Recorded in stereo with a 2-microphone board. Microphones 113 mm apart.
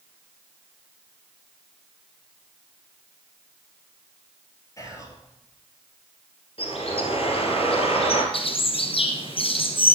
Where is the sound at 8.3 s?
55° left (ahead or behind), 1.2 m.